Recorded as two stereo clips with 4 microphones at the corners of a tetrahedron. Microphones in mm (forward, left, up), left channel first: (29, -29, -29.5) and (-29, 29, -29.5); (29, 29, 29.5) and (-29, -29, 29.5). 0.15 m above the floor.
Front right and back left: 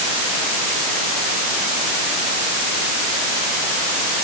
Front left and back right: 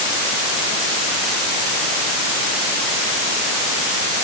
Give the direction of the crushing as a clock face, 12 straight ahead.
No crushing in this recording.